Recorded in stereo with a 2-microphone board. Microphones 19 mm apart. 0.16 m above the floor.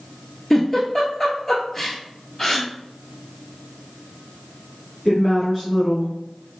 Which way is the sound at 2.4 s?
20° left (ahead or behind).